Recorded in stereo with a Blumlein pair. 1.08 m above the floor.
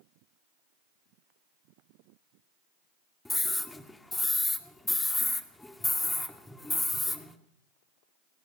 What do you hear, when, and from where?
3.2 s a scream: 5° left, 2 m